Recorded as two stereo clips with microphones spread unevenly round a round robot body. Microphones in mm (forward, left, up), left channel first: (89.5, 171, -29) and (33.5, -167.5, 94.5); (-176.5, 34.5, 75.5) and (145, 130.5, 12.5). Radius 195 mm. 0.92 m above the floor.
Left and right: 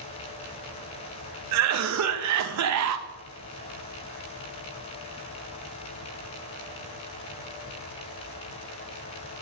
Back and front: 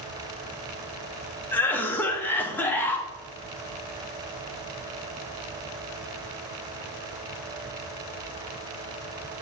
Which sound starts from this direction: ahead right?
A cough, at 1.5 s.